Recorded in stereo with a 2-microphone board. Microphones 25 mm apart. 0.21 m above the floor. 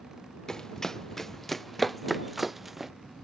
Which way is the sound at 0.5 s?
25° left (ahead or behind).